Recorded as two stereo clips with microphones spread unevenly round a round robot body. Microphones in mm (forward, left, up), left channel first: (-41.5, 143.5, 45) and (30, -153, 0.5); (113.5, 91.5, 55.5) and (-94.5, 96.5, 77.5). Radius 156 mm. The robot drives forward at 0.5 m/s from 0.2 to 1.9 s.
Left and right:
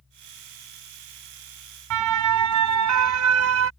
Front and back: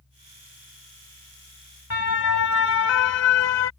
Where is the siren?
45° right; by 3.7 s 30° right.